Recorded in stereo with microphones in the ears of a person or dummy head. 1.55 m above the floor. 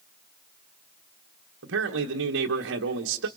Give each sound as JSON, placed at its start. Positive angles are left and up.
{"t": 1.6, "sound": "a man speaking", "side_deg": -70, "distance_m": 1.4}